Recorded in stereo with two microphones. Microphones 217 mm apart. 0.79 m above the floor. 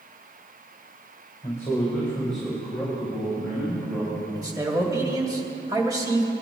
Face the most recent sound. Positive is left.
turn(degrees=-15)  # may be behind; listen again after turning